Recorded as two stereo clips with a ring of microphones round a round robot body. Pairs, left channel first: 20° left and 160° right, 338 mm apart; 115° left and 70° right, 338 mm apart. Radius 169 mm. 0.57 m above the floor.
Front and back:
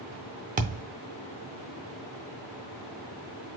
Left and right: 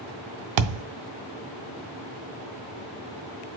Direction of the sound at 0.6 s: 90° right.